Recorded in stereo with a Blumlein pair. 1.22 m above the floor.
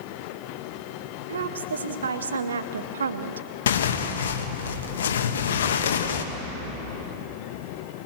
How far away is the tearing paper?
About 1.4 m.